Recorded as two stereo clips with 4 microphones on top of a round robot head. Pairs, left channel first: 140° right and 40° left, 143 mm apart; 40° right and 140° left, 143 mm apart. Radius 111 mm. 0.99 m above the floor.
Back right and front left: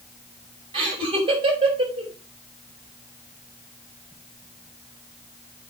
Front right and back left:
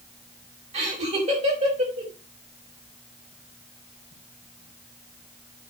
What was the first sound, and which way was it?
Laughter, 95° left.